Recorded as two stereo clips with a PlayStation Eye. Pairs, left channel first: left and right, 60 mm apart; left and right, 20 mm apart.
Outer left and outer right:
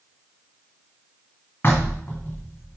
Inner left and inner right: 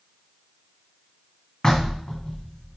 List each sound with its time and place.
1.6 s knocking: 35° left (ahead or behind), 1.8 m